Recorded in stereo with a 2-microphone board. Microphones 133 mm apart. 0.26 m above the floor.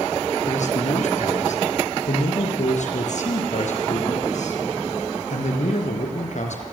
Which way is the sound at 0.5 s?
65° left (ahead or behind).